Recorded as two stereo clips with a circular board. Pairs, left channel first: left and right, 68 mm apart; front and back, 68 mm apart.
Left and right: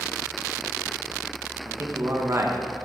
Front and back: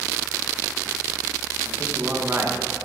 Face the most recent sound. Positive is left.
turn(degrees=-130)